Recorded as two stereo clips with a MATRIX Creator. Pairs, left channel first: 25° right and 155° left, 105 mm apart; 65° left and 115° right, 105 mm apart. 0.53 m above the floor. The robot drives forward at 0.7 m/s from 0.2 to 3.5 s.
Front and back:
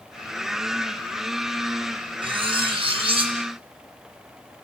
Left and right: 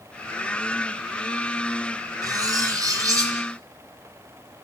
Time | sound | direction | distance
2.2 | cutlery clinking | 165° right | 3 m